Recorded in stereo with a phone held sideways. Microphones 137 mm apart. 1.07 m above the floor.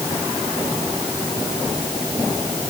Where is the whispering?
No whispering in this recording.